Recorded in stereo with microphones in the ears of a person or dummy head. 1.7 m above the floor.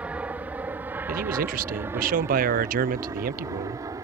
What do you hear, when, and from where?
0.0 s an aircraft: 10° right (ahead or behind); by 4.0 s 20° right (ahead or behind)
1.1 s a man speaking: 50° right (ahead or behind)